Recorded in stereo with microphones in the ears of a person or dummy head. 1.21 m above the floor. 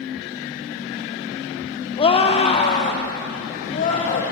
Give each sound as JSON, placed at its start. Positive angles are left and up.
{"t": 2.0, "sound": "a scream", "side_deg": 30, "distance_m": 0.9}